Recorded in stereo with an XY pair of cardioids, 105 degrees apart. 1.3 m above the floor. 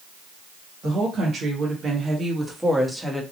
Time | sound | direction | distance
0.8 | a woman speaking | 55° right | 1.3 m